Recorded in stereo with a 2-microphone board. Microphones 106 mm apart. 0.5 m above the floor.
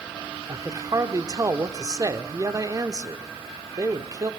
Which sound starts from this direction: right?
A man speaking, at 0.5 s.